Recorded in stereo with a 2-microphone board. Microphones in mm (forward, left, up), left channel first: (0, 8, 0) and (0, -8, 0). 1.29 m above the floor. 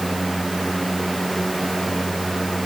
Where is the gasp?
I don't hear a gasp.